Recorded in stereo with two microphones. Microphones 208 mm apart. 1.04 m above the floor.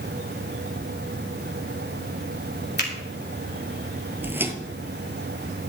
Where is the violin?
No violin in this recording.